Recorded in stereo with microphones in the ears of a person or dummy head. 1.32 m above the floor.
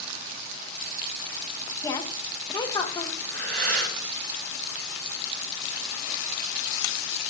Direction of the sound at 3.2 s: 65° right (ahead or behind).